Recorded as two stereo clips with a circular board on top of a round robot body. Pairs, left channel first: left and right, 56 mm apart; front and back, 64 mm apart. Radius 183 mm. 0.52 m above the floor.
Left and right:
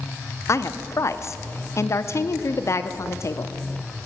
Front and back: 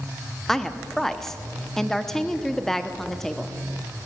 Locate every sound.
0.5 s a woman speaking: 80° left, 1.5 m